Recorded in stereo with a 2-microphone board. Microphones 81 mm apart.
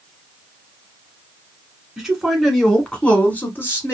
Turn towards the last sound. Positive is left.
turn(degrees=35)  # may be behind; listen again after turning